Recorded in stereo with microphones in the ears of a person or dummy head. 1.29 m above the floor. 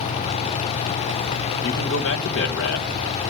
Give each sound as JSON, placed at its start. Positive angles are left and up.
{"t": 1.6, "sound": "a man speaking", "side_deg": 70, "distance_m": 1.2}